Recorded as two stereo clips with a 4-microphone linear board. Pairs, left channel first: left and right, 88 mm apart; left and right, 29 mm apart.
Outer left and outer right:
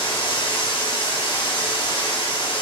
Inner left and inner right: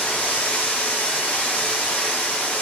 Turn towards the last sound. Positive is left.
turn(degrees=75)  # may be behind; listen again after turning